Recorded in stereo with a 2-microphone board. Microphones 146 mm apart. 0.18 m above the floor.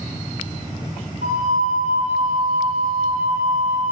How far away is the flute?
About 1.5 m.